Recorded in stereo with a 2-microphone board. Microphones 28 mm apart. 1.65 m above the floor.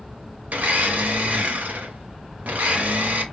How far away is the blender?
About 1.0 m.